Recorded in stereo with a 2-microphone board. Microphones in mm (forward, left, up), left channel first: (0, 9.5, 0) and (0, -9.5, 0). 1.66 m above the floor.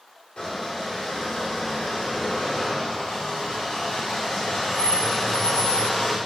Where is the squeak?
50° left (ahead or behind), 3.5 m.